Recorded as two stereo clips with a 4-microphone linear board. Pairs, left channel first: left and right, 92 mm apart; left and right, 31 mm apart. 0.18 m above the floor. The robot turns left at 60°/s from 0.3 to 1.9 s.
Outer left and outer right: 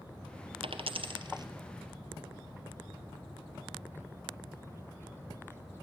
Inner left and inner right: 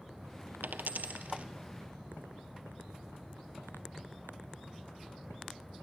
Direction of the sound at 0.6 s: 75° right (ahead or behind).